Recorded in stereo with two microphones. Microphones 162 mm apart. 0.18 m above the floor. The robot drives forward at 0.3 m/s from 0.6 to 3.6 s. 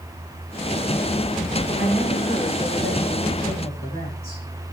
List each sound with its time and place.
1.8 s a woman speaking: 80° left, 9 m